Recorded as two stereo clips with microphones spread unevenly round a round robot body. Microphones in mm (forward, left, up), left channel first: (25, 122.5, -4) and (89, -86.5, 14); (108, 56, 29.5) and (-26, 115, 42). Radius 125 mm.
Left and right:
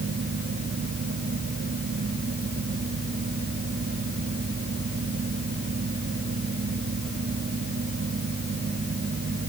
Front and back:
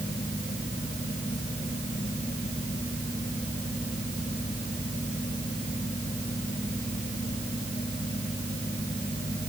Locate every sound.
Only background noise.